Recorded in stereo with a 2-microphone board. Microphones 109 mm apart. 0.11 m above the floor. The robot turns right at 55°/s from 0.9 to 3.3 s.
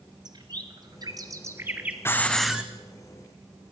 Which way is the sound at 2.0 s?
160° left.